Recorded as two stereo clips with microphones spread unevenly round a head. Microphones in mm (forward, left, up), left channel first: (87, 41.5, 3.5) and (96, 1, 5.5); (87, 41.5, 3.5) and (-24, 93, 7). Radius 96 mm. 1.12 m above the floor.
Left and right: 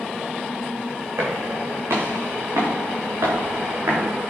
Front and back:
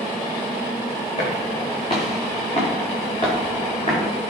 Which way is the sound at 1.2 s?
90° right.